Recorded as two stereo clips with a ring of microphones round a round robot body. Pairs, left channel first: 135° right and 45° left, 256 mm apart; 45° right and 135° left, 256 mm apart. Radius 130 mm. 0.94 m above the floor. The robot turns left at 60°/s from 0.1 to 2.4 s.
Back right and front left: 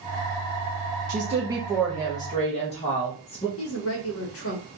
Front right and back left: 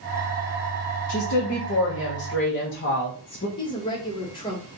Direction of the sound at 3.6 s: 115° right.